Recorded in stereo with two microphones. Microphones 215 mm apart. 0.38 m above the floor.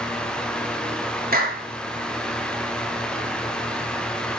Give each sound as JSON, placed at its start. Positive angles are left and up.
{"t": 1.3, "sound": "a clap", "side_deg": -45, "distance_m": 5.0}